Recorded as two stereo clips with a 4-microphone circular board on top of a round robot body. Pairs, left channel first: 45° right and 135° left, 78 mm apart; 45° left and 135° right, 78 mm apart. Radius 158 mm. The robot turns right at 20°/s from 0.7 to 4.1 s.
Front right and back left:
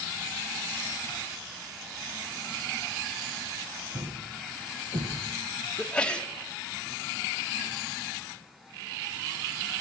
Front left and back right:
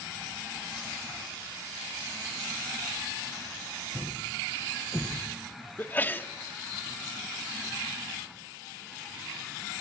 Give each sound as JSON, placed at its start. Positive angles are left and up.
{"t": 3.9, "sound": "a thud", "azimuth_deg": 110, "distance_m": 2.5}
{"t": 5.8, "sound": "a sneeze", "azimuth_deg": 20, "distance_m": 1.2}